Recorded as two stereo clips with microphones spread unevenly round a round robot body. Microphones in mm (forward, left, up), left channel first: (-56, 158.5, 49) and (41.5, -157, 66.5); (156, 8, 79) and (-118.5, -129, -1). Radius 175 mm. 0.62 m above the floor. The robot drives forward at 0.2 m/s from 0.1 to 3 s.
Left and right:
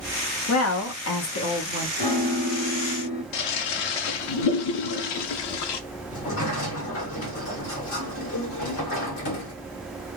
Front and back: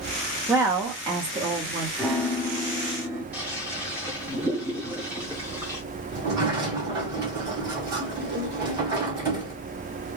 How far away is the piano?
About 1.0 m.